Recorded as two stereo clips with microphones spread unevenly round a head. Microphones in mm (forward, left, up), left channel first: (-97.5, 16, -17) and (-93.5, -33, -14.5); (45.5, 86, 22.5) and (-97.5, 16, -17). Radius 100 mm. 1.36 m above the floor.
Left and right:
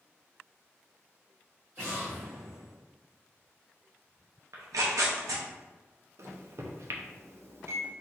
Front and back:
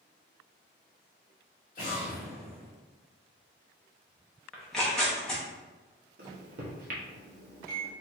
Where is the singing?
No singing in this recording.